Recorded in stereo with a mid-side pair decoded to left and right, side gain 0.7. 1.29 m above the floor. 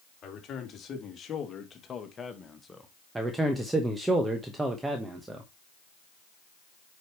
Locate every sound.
0.2 s a man speaking: 40° left, 3 m; by 2.9 s 10° left, 1.3 m
3.1 s a man speaking: 15° right, 1.2 m